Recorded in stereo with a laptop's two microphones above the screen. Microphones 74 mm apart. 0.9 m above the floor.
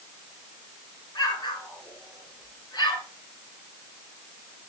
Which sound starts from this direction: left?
An explosion, at 1.1 s.